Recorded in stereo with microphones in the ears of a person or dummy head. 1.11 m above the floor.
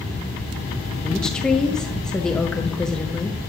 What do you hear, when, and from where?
1.0 s a woman speaking: 10° left (ahead or behind), 0.7 m